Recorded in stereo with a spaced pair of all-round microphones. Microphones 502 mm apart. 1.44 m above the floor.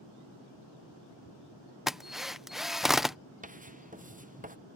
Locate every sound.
1.9 s a drill: centre (ahead or behind)
3.4 s writing: 15° right (ahead or behind)